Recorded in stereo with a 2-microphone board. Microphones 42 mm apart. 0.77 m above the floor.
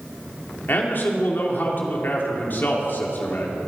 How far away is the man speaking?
About 2.5 m.